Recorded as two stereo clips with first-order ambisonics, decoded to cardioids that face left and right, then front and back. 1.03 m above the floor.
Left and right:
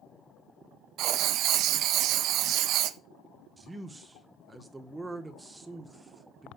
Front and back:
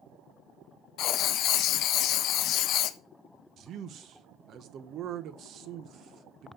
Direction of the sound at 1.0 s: 45° right.